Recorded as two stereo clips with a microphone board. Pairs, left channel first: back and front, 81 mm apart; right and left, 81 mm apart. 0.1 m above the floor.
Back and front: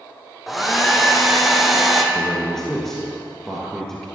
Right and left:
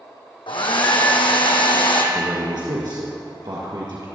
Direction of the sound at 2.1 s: 95° left.